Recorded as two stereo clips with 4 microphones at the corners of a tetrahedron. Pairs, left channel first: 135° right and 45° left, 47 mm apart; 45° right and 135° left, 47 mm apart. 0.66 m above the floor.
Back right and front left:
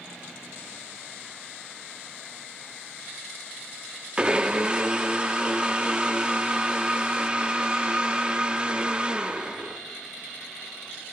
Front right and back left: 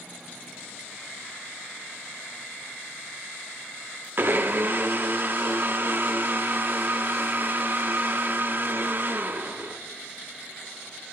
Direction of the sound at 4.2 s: 110° left.